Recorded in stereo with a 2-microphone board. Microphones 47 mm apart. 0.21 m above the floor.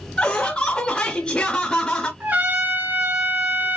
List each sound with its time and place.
0.2 s laughter: 25° left (ahead or behind), 1.2 m
2.2 s a trumpet: 45° right (ahead or behind), 2 m